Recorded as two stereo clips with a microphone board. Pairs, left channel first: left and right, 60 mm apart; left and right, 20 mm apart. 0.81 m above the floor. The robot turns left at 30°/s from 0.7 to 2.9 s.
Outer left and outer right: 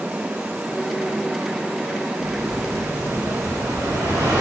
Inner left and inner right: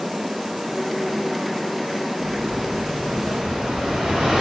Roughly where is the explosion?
Right.